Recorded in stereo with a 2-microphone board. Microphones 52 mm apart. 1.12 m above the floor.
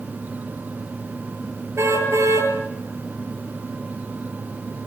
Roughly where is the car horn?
Right.